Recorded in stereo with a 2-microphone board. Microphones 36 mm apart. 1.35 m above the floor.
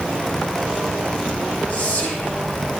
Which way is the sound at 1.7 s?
50° left (ahead or behind).